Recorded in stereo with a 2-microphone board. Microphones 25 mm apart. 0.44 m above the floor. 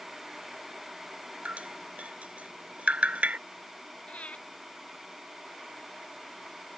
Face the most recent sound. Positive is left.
turn(degrees=70)  # may be behind; listen again after turning